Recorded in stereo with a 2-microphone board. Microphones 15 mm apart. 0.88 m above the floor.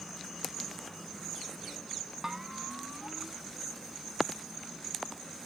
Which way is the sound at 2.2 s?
20° right (ahead or behind).